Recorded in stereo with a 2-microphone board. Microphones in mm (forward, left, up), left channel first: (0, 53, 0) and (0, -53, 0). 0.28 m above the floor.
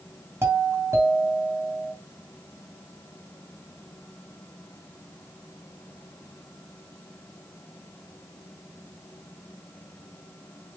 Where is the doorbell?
25° right (ahead or behind), 2.5 m.